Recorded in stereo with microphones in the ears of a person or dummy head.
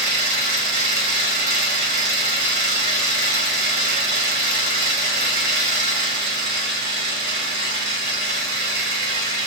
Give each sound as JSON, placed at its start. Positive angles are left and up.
{"t": 0.0, "sound": "an engine running", "side_deg": -50, "distance_m": 1.0}